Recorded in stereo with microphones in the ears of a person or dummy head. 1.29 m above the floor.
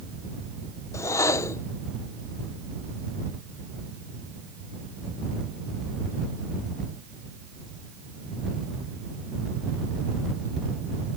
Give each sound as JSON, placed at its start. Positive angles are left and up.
{"t": 0.9, "sound": "a whoosh", "side_deg": 15}